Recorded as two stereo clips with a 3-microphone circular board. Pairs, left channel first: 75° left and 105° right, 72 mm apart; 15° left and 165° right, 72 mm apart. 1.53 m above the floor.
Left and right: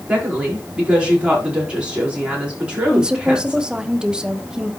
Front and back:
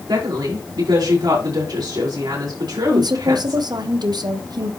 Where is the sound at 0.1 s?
Straight behind, 5 m.